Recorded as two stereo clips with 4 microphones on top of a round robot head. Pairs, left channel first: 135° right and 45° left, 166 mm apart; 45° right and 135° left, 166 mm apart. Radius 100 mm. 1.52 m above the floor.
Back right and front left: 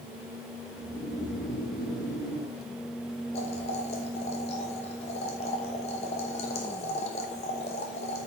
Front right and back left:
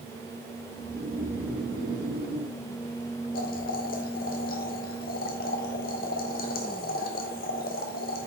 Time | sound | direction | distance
0.8 | snoring | 170° right | 3 m
3.3 | boiling | 80° right | 1.0 m